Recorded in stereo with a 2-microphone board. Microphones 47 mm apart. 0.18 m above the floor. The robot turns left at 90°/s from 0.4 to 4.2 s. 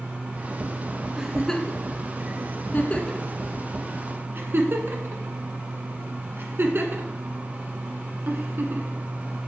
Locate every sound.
1.2 s a giggle: 10° right (ahead or behind), 1.3 m; by 9.0 s 50° right (ahead or behind), 1.3 m